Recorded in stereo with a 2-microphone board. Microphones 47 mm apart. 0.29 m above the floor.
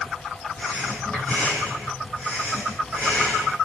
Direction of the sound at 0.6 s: 35° left (ahead or behind).